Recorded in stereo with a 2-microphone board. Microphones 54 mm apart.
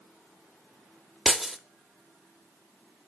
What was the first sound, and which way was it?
Breaking glass, 5° right (ahead or behind).